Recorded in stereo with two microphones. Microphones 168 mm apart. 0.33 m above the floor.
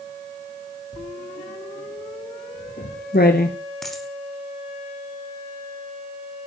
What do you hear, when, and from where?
0.9 s writing: 75° left (ahead or behind), 2.5 m
3.8 s a dropped coin: centre (ahead or behind), 3.5 m